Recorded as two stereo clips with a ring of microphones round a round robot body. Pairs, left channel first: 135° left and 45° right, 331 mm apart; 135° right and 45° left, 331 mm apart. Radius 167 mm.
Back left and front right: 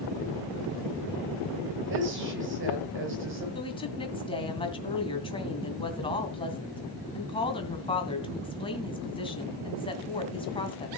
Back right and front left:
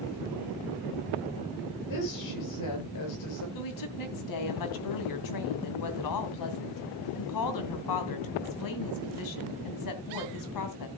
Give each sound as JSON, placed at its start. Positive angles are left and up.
{"t": 1.9, "sound": "a woman speaking", "azimuth_deg": -100, "distance_m": 7.0}
{"t": 3.5, "sound": "a woman speaking", "azimuth_deg": -150, "distance_m": 2.5}